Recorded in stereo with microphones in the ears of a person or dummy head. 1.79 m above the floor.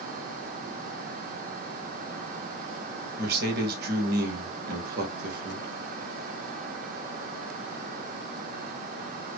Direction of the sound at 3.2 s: 55° right (ahead or behind).